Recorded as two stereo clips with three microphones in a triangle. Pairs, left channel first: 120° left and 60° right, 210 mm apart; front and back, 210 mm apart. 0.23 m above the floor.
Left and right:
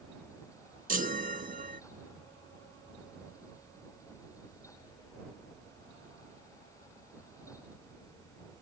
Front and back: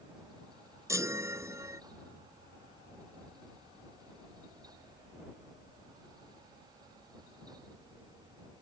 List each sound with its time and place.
0.9 s a chime: 105° right